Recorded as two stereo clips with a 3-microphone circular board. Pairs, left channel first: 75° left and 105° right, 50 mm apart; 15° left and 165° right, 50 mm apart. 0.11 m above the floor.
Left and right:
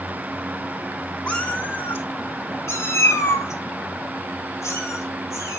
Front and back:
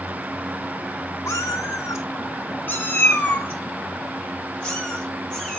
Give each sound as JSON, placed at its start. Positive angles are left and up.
{"t": 1.3, "sound": "a cat meowing", "azimuth_deg": 5, "distance_m": 0.9}